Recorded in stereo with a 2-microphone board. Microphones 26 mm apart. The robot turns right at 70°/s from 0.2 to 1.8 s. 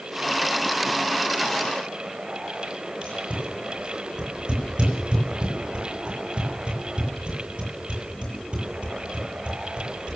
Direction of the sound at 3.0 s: 40° right (ahead or behind).